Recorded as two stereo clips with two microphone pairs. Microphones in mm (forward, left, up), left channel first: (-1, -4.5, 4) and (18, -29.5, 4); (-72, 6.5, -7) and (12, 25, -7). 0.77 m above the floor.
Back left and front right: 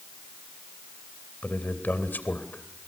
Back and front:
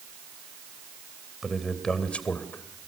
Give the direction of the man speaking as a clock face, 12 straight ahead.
9 o'clock.